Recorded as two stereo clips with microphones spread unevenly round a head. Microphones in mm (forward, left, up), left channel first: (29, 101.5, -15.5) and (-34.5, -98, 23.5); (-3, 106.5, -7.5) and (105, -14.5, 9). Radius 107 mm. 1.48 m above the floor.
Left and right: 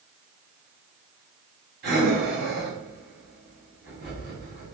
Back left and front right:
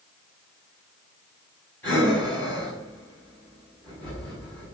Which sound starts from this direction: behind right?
Breathing, at 1.8 s.